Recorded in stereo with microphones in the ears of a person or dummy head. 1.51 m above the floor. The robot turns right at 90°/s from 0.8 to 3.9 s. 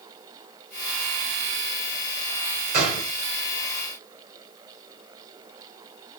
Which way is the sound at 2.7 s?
50° right.